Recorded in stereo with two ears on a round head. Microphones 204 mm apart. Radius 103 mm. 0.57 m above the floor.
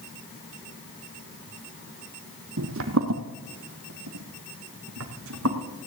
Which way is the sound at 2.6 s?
60° right (ahead or behind).